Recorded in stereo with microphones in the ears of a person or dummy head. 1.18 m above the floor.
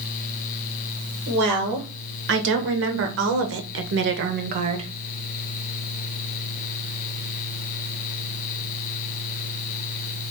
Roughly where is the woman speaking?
Right.